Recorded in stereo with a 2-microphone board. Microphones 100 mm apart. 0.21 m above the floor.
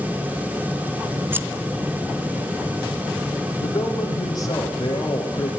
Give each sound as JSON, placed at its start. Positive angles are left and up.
{"t": 1.3, "sound": "scissors", "side_deg": -20, "distance_m": 1.0}
{"t": 3.6, "sound": "a man speaking", "side_deg": 40, "distance_m": 7.5}